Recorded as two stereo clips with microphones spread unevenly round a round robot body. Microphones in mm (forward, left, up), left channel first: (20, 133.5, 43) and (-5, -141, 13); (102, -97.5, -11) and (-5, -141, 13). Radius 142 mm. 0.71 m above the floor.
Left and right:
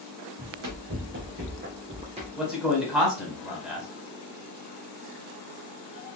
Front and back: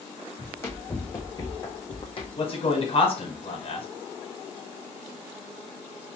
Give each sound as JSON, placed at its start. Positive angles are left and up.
{"t": 0.4, "sound": "running footsteps", "azimuth_deg": -50, "distance_m": 2.0}
{"t": 2.4, "sound": "a man speaking", "azimuth_deg": -10, "distance_m": 2.5}